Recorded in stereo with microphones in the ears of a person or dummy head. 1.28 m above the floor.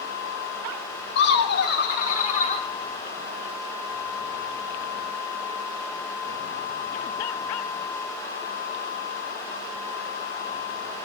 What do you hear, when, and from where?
1.1 s laughter: 80° left, 2.5 m; by 2.7 s 40° left (ahead or behind), 3 m